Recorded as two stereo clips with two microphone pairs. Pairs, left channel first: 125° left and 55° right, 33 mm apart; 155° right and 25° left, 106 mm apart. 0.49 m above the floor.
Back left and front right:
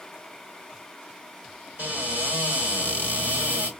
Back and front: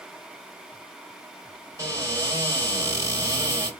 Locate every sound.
1.8 s a cupboard door: 35° right, 2 m